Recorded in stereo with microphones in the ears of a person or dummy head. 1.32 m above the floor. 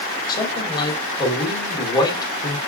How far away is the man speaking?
About 3.5 m.